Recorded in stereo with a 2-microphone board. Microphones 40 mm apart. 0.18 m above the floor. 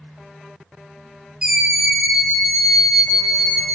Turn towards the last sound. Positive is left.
turn(degrees=15)  # may be behind; listen again after turning